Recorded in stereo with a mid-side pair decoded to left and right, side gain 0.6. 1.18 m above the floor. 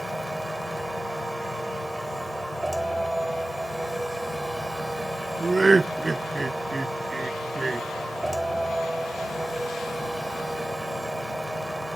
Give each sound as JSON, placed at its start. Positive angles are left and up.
{"t": 0.0, "sound": "a machine running", "azimuth_deg": -5}
{"t": 5.4, "sound": "laughter", "azimuth_deg": -15}